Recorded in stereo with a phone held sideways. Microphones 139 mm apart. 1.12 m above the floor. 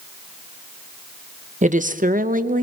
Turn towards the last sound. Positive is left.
turn(degrees=-70)  # may be behind; listen again after turning